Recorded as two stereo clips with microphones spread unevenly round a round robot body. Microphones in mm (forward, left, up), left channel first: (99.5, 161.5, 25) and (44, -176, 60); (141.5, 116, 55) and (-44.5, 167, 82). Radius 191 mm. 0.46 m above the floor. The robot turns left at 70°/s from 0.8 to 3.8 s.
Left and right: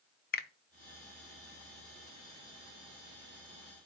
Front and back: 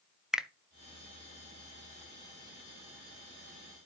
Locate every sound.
0.3 s a finger snap: 65° left, 0.6 m